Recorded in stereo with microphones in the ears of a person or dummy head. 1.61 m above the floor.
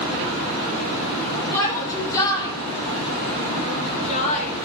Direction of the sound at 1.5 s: 15° left (ahead or behind).